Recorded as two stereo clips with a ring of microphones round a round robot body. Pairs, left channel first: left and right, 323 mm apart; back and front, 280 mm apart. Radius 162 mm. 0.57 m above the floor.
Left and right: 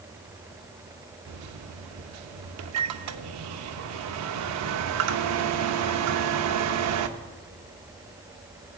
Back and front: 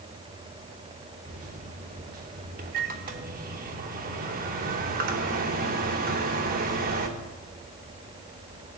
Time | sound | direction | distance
1.3 | a microwave | 60° right | 0.7 m